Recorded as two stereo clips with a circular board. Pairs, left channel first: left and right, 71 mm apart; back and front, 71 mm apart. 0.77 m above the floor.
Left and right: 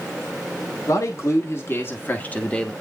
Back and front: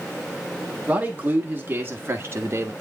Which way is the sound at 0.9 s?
65° left.